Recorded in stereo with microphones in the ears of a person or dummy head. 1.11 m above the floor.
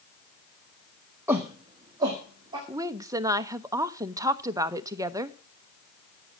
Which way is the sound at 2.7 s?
15° right (ahead or behind).